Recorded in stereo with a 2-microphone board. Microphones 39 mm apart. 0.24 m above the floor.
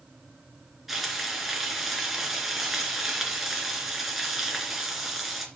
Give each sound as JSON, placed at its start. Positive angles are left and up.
{"t": 0.9, "sound": "frying", "side_deg": -5, "distance_m": 2.5}